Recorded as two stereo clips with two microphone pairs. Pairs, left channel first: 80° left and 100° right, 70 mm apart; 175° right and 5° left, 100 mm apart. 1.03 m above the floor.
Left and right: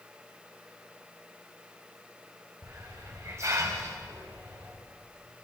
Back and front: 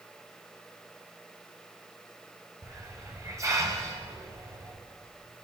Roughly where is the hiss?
Ahead right.